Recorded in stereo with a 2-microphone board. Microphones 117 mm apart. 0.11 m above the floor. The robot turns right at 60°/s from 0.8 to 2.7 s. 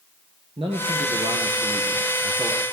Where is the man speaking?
120° right, 2.5 m; by 2.6 s 10° right, 2.5 m.